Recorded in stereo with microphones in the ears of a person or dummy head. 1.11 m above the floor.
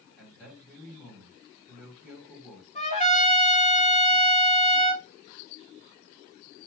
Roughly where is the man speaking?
Centre.